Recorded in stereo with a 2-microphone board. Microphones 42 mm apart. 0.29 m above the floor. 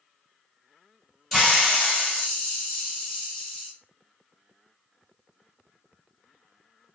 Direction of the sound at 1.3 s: 5° left (ahead or behind).